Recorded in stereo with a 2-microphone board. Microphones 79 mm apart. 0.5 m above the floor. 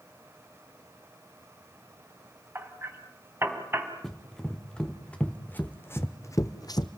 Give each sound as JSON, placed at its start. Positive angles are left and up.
{"t": 2.5, "sound": "hammering", "side_deg": -30, "distance_m": 3.0}
{"t": 4.0, "sound": "running footsteps", "side_deg": 5, "distance_m": 3.0}